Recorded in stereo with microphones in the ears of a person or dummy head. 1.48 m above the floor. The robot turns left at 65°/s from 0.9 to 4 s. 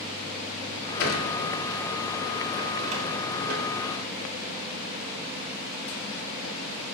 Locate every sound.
1.0 s a sliding door: 75° left (ahead or behind), 3.5 m; by 3.6 s 75° right (ahead or behind), 3.5 m